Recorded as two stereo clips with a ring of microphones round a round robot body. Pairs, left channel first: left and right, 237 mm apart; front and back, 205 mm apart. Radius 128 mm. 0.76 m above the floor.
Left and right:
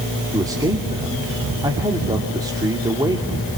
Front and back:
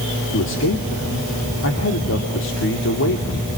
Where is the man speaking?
15° right, 2.5 m.